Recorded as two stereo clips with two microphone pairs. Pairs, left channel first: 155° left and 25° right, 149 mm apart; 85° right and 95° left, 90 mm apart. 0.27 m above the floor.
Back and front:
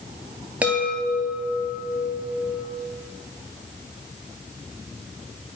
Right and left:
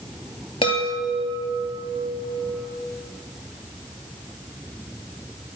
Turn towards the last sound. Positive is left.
turn(degrees=-105)